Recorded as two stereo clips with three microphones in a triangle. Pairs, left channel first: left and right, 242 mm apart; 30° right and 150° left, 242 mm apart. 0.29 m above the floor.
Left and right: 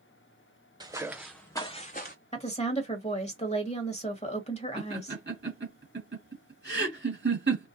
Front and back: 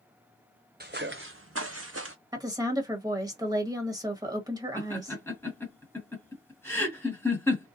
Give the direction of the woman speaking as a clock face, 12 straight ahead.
9 o'clock.